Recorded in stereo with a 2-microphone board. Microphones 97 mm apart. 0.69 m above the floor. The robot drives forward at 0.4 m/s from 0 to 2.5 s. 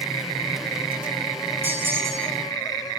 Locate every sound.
1.6 s a bell: 25° right (ahead or behind), 1.5 m; by 2.4 s 30° right (ahead or behind), 1.2 m